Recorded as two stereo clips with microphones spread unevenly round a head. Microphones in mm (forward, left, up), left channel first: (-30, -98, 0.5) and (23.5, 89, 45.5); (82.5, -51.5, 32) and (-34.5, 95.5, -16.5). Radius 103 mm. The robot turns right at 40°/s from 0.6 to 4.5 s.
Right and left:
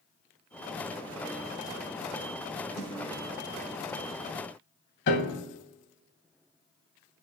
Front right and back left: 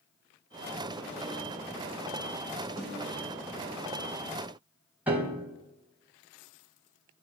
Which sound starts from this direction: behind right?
A piano, at 5.1 s.